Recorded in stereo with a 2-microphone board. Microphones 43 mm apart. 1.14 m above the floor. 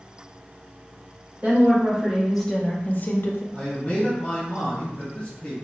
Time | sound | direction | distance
1.4 | a woman speaking | 30° right (ahead or behind) | 1.0 m
3.5 | a man speaking | 20° left (ahead or behind) | 1.2 m